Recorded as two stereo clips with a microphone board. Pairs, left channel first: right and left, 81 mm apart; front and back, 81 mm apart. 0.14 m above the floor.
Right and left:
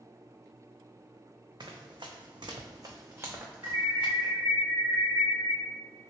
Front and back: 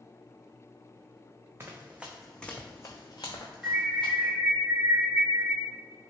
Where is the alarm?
95° left, 1.7 m.